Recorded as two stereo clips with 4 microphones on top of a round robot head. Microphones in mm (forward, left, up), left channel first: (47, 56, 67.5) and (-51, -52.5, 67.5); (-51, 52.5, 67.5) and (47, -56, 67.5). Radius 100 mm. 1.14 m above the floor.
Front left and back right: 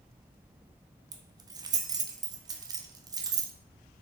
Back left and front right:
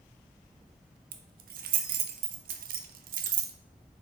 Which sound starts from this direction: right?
Keys jangling, at 1.1 s.